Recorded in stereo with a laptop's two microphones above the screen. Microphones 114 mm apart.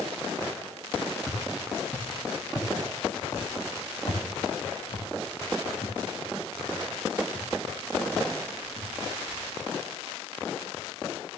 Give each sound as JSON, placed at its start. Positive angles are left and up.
{"t": 1.3, "sound": "footsteps", "side_deg": 5, "distance_m": 2.0}